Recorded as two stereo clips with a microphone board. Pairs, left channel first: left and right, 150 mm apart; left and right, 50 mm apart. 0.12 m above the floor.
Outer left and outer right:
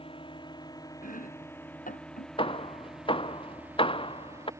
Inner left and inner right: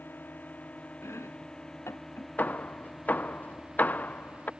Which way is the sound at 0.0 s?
35° left (ahead or behind).